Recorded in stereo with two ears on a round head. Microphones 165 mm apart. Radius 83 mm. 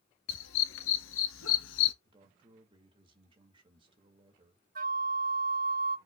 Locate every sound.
0.3 s a dog barking: 80° left, 2 m; by 1.9 s 70° left (ahead or behind), 1.2 m
2.0 s a man speaking: 30° right (ahead or behind), 1.9 m
4.8 s a flute: 50° right (ahead or behind), 0.6 m